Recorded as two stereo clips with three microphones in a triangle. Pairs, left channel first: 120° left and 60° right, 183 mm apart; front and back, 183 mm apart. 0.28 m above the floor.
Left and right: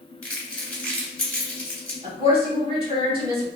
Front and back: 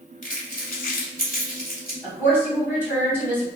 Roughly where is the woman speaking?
Right.